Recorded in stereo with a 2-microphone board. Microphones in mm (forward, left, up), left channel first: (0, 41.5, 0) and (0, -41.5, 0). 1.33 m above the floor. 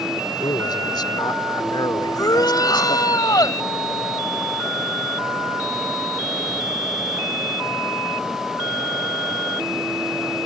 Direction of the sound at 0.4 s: 60° left (ahead or behind).